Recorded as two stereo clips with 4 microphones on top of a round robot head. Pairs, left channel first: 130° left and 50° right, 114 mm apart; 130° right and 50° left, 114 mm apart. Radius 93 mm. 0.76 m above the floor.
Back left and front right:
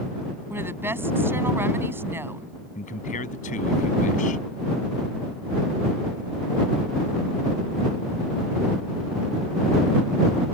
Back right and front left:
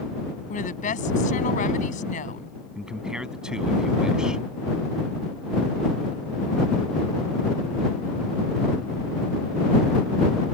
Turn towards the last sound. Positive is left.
turn(degrees=135)